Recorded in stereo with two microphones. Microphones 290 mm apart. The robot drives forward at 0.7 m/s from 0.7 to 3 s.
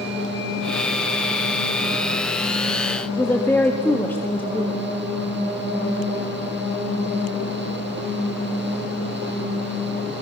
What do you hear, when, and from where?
3.2 s a woman speaking: 5° left (ahead or behind), 1.6 m